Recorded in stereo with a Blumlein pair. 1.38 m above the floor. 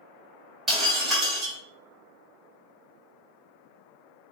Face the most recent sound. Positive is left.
turn(degrees=-10)